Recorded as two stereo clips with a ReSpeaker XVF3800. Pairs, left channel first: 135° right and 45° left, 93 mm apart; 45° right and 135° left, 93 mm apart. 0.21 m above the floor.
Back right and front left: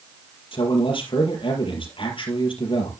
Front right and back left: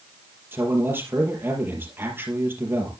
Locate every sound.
0.5 s a man speaking: 160° right, 4 m